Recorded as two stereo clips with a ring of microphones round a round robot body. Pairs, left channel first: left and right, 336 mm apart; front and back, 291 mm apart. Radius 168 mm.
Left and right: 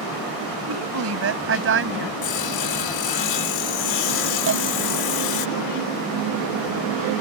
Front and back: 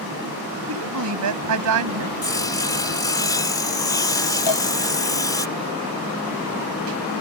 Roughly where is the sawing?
Left.